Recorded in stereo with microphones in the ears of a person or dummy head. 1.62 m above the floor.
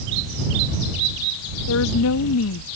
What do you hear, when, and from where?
1.7 s a woman speaking: 80° left